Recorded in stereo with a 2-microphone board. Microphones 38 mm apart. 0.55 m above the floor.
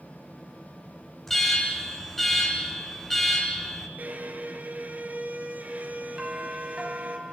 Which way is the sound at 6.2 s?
15° right (ahead or behind).